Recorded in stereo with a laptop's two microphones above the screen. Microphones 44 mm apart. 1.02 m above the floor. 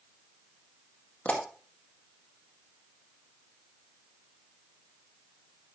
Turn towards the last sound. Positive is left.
turn(degrees=30)  # may be behind; listen again after turning